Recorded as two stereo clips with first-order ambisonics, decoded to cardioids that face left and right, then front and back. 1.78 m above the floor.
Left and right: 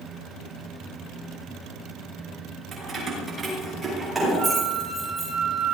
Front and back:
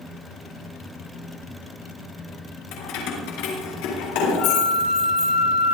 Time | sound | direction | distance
2.7 | keys jangling | 20° right | 5.5 m
4.4 | a flute | 40° right | 7.5 m